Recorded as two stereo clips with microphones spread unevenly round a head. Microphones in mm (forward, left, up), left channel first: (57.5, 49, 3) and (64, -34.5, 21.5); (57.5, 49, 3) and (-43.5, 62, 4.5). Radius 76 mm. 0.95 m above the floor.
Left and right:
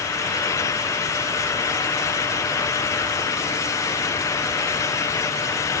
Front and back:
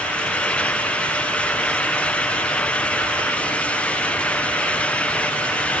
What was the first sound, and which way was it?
Only background noise.